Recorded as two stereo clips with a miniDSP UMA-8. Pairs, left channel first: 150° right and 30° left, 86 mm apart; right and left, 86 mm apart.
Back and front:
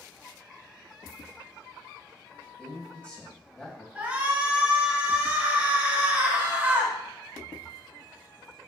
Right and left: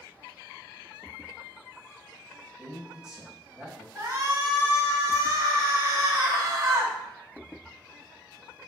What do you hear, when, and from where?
2.6 s a man speaking: 155° left, 1.4 m
4.0 s a shout: 90° left, 1.7 m